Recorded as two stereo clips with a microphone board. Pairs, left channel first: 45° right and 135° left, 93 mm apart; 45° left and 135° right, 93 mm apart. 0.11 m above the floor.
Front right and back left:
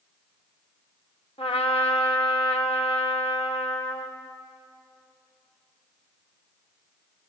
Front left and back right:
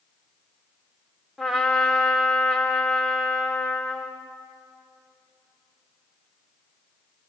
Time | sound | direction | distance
1.4 | a trumpet | 50° right | 3.5 m